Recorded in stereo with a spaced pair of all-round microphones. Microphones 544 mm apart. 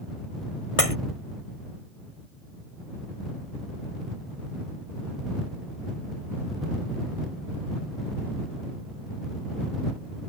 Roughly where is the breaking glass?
Left.